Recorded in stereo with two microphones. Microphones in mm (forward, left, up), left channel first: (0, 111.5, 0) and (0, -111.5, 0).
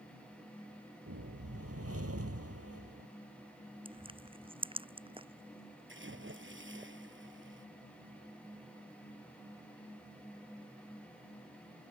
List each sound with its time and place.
1.1 s a whoosh: 75° right (ahead or behind)
3.9 s crushing: 20° right (ahead or behind)
5.9 s a splash: 55° right (ahead or behind)